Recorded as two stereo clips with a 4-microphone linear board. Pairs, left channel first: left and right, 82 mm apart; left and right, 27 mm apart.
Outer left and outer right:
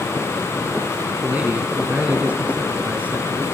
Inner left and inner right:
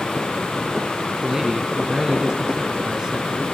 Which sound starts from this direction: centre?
A man speaking, at 1.2 s.